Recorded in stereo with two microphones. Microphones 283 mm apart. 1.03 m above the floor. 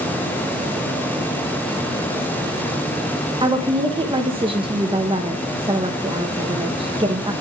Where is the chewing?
I don't hear chewing.